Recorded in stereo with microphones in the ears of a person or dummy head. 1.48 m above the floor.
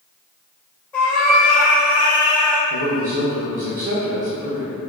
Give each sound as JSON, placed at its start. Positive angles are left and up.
{"t": 0.9, "sound": "a cat meowing", "side_deg": 15, "distance_m": 1.2}
{"t": 2.7, "sound": "a man speaking", "side_deg": -55, "distance_m": 0.6}